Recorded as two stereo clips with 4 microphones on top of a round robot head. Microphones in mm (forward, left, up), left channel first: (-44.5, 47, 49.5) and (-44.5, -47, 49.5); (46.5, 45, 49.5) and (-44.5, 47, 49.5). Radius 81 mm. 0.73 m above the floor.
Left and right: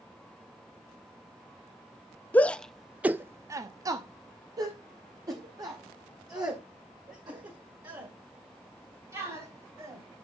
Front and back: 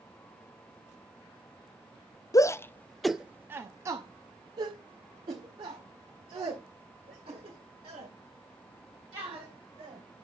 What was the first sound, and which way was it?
A shout, 25° left.